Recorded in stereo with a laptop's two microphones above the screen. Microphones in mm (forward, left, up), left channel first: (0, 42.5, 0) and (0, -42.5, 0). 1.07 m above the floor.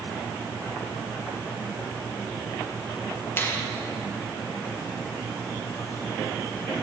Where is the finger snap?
25° left (ahead or behind), 0.9 m.